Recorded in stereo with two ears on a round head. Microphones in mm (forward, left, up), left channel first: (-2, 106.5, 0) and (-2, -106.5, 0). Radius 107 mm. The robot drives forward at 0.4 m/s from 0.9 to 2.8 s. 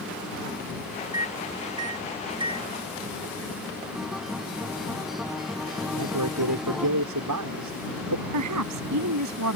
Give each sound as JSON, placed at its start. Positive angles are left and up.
{"t": 1.1, "sound": "a microwave", "side_deg": -15}
{"t": 4.0, "sound": "a guitar", "side_deg": 0}
{"t": 5.9, "sound": "a man speaking", "side_deg": -85}
{"t": 8.3, "sound": "a woman speaking", "side_deg": -80}